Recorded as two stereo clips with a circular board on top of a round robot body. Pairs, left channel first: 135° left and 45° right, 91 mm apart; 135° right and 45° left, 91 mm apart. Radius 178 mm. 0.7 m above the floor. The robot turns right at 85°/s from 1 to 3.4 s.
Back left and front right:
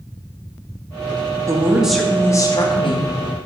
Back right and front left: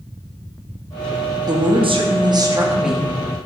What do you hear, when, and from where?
1.5 s a woman speaking: 5° left, 1.2 m; by 3.1 s 145° left, 1.2 m